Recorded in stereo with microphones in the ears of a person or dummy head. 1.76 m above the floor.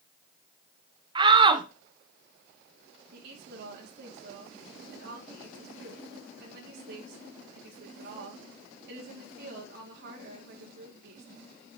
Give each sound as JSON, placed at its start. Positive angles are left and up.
{"t": 1.1, "sound": "a shout", "side_deg": -30, "distance_m": 0.8}
{"t": 3.1, "sound": "a woman speaking", "side_deg": -60, "distance_m": 2.5}